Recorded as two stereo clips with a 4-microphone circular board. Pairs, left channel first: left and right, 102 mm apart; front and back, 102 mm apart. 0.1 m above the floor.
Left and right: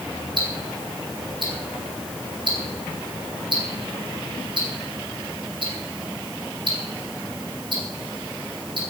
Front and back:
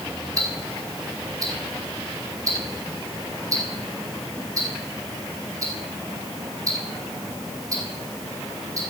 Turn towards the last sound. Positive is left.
turn(degrees=-125)